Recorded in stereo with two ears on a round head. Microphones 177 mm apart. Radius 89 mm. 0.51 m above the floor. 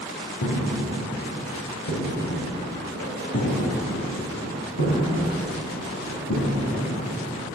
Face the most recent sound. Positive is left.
turn(degrees=75)  # may be behind; listen again after turning